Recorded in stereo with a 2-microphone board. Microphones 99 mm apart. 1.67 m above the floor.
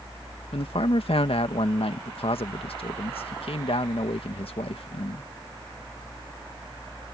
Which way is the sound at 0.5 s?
75° left (ahead or behind).